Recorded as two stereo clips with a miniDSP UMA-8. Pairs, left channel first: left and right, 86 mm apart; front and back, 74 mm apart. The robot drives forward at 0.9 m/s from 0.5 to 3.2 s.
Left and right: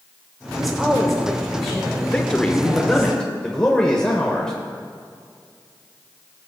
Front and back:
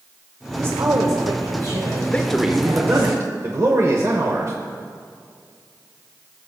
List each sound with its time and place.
0.6 s a woman speaking: straight behind, 0.8 m
2.1 s a man speaking: 30° left, 0.8 m; by 4.5 s 170° left, 1.0 m